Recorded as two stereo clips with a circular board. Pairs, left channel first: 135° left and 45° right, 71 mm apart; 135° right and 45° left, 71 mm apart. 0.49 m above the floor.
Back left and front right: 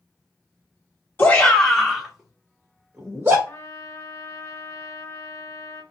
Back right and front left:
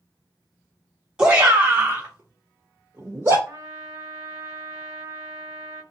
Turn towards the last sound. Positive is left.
turn(degrees=95)